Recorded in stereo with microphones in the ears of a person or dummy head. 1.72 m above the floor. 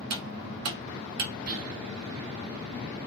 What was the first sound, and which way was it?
Cutlery clinking, 55° right (ahead or behind).